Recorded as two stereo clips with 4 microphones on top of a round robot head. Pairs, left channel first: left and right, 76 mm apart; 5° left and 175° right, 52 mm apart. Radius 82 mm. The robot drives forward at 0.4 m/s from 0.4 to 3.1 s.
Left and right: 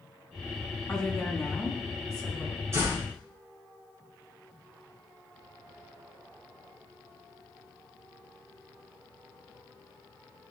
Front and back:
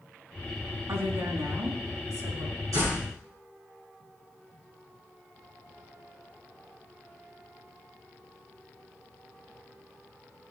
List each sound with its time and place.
0.9 s a woman speaking: 170° left, 4.5 m
2.7 s a door slam: 150° right, 8.5 m